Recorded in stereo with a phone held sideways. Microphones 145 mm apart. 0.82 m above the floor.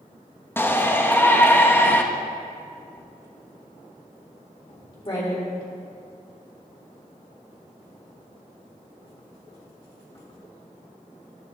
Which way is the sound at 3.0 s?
40° left (ahead or behind).